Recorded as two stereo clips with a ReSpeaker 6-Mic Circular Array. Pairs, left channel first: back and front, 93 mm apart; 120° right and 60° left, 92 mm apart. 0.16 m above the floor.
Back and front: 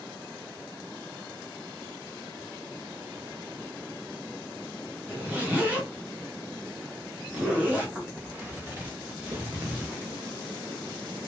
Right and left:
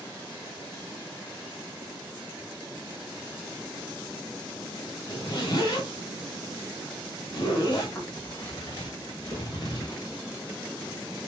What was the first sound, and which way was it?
A zipper, 75° right.